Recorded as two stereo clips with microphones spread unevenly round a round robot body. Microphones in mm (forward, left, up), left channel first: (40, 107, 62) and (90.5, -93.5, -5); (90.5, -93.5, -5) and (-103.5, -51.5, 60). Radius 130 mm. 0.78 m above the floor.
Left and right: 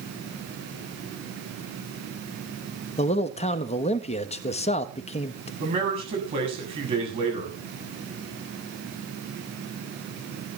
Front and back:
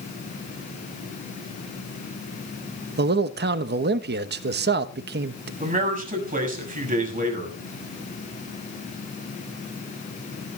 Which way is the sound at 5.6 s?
140° right.